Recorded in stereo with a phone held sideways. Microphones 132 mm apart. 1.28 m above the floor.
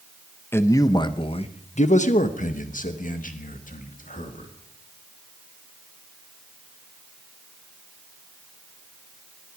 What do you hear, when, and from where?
0.5 s a man speaking: 20° left (ahead or behind), 0.9 m; by 4.5 s 80° left, 2 m